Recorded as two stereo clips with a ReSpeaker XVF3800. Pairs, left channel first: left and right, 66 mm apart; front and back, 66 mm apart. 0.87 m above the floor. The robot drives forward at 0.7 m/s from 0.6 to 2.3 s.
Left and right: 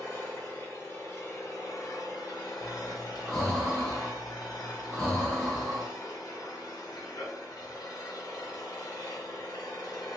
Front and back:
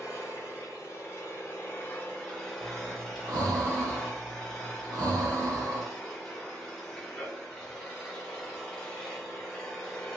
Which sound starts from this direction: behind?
Breathing, at 2.6 s.